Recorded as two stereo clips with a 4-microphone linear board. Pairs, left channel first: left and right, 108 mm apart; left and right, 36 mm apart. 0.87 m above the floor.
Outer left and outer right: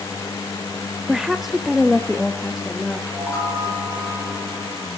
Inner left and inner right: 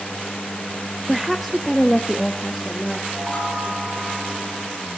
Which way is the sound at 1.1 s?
5° right (ahead or behind).